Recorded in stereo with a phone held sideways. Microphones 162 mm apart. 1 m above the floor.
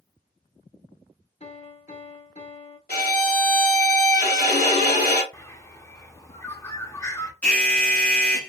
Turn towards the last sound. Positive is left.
turn(degrees=10)  # may be behind; listen again after turning